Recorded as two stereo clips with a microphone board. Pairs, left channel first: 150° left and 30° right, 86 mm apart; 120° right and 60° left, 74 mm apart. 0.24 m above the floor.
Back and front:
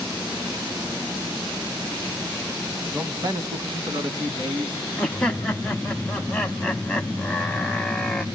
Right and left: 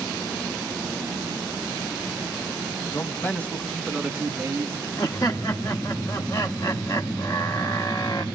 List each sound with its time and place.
2.9 s a man speaking: 80° right, 1.6 m; by 4.9 s straight ahead, 3 m
5.0 s laughter: 135° right, 1.3 m